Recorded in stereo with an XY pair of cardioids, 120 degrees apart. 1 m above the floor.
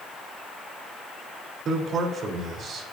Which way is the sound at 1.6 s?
50° right.